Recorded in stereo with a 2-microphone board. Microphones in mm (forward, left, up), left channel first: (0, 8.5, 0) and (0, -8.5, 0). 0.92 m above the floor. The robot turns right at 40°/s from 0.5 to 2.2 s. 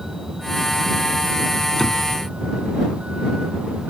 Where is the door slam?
10° left (ahead or behind); by 2.1 s 25° left (ahead or behind).